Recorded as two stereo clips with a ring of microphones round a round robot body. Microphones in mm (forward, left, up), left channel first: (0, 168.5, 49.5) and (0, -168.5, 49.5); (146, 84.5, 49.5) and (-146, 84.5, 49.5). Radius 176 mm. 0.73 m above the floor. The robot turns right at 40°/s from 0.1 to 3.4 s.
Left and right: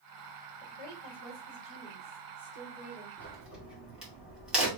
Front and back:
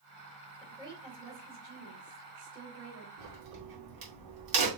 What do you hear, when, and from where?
0.6 s a woman speaking: 95° left, 3.5 m; by 3.1 s 165° right, 3.5 m
3.2 s a crack: 175° left, 2.5 m; by 4.7 s straight behind, 2.5 m